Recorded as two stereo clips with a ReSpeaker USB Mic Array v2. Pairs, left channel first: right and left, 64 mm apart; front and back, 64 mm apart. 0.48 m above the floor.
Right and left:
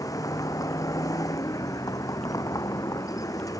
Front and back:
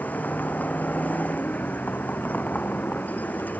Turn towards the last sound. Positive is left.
turn(degrees=-65)